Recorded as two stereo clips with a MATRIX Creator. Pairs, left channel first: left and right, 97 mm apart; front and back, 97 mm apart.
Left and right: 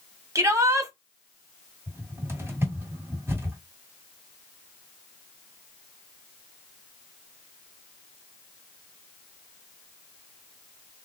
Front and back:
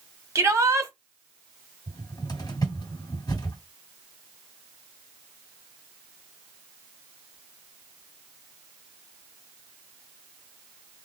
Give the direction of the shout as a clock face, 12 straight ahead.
5 o'clock.